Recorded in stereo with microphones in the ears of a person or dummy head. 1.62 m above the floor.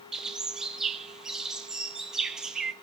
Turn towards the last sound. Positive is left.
turn(degrees=-5)  # may be behind; listen again after turning